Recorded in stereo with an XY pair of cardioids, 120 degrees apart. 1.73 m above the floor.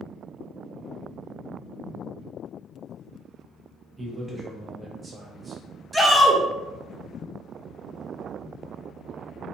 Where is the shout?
5° right, 0.8 m.